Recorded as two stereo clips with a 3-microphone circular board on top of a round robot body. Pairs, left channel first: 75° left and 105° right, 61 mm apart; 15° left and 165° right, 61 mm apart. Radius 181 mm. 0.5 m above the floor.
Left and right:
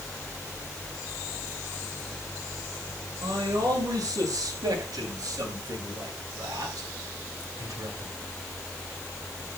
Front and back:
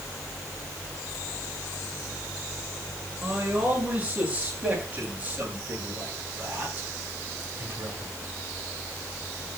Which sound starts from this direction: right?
A man speaking, at 3.2 s.